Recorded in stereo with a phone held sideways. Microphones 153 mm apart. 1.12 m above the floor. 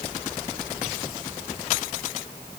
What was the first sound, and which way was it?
Only background noise.